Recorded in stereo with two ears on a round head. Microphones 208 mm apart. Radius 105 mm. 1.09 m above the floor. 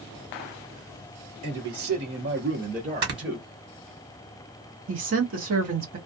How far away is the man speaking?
About 1.2 m.